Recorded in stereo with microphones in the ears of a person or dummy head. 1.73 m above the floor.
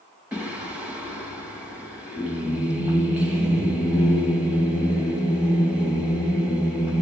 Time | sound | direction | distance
0.3 | singing | 5° right (ahead or behind) | 1.4 m